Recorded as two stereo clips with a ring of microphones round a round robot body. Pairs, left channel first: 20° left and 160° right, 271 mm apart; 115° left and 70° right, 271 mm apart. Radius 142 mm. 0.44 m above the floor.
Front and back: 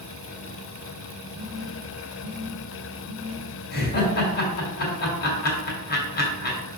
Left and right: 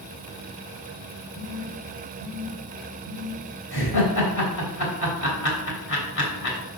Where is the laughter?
75° left, 3 m.